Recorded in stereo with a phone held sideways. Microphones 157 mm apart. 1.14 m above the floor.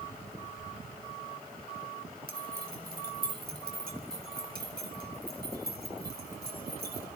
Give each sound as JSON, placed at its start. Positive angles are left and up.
{"t": 2.3, "sound": "keys jangling", "side_deg": -75, "distance_m": 4.0}